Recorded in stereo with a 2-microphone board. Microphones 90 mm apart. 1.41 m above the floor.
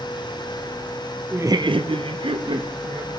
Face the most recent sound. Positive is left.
turn(degrees=-65)  # may be behind; listen again after turning